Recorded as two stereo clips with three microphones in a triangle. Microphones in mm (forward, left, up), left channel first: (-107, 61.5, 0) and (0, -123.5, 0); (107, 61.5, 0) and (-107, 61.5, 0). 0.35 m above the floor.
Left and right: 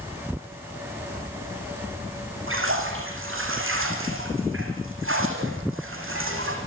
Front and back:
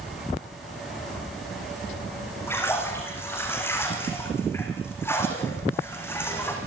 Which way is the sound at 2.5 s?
80° right.